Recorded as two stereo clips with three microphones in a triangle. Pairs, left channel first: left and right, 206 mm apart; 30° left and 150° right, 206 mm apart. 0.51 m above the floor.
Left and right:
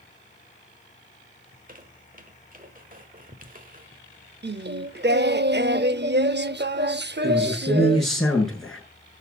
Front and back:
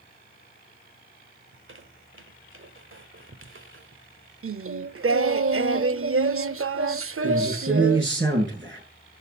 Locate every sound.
1.5 s a squeak: 140° right, 1.3 m
4.4 s singing: 135° right, 0.5 m
7.2 s a man speaking: straight behind, 7.5 m